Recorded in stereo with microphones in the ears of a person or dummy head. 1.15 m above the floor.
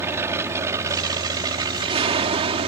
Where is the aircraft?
15° right (ahead or behind); by 2.7 s 30° right (ahead or behind).